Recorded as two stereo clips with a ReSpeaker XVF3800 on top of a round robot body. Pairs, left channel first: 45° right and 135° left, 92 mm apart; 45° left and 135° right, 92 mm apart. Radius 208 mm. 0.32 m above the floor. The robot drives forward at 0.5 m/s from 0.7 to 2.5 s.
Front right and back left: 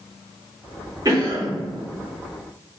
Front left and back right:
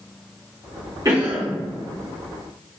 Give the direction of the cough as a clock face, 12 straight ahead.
6 o'clock.